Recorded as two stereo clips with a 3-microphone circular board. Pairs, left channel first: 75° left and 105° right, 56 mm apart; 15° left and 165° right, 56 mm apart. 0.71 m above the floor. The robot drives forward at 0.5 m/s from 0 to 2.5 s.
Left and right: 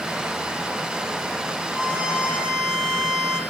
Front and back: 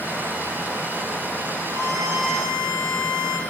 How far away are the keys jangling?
I don't hear keys jangling.